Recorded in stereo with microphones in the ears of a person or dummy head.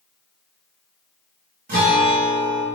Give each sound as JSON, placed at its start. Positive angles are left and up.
{"t": 1.7, "sound": "a guitar", "side_deg": -40, "distance_m": 0.8}